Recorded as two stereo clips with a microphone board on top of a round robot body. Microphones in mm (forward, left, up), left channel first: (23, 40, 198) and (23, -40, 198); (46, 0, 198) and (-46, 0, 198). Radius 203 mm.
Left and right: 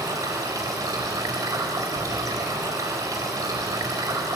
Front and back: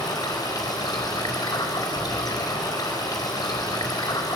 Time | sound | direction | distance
0.0 | running water | 45° right | 4 m